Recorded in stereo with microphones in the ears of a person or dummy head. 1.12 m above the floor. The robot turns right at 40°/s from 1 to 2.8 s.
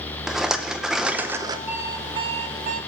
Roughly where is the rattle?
Centre.